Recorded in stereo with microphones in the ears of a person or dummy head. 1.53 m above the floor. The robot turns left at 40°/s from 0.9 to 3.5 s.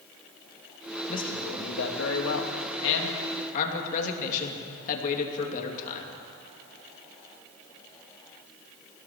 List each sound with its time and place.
1.1 s a man speaking: 140° left, 3 m; by 6.1 s 45° left, 3 m